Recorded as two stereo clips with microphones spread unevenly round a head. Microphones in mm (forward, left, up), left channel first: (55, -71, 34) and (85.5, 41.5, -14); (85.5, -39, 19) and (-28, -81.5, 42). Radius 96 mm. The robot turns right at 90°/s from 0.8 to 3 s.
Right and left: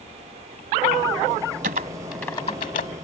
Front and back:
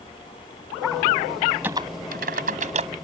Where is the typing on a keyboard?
120° left; by 2.9 s 125° right.